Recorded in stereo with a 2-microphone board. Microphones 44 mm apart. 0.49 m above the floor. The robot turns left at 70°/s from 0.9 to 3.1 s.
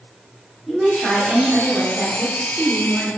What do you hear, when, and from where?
0.7 s a woman speaking: centre (ahead or behind), 0.8 m; by 3.1 s 10° right (ahead or behind), 0.8 m